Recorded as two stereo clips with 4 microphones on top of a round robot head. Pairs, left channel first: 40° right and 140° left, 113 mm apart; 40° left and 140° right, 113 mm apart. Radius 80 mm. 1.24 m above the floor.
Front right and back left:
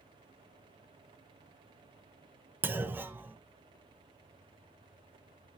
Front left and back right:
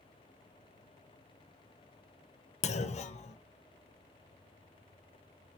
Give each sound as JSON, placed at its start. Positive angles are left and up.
{"t": 2.6, "sound": "a clunk", "azimuth_deg": 65, "distance_m": 0.9}